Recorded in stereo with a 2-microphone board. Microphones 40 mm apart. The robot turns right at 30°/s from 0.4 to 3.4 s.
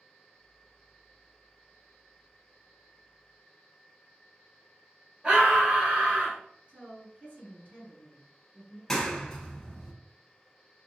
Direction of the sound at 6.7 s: 35° right (ahead or behind).